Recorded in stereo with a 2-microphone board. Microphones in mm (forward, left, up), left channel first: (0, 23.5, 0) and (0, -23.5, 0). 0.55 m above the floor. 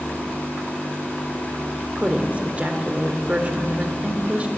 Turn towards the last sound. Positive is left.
turn(degrees=-30)  # may be behind; listen again after turning